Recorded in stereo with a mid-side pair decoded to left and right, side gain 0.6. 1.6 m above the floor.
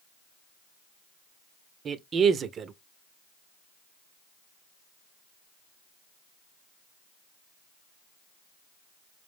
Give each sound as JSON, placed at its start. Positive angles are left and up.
{"t": 1.9, "sound": "a man speaking", "azimuth_deg": -40, "distance_m": 0.7}